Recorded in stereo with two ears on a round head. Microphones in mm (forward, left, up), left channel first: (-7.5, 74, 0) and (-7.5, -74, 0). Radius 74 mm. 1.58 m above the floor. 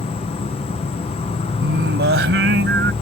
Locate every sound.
0.0 s an insect: 35° left (ahead or behind)
1.6 s singing: 70° right (ahead or behind)